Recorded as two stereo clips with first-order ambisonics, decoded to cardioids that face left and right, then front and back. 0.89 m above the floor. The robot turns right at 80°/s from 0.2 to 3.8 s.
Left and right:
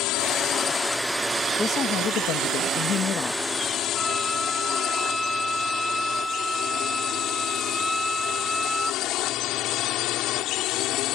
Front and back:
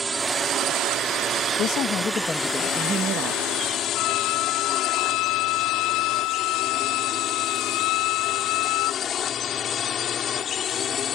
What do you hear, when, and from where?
0.0 s a drone: 110° left; by 11.2 s 60° left
1.6 s a woman speaking: 15° left; by 3.4 s 165° left
4.0 s a violin: straight ahead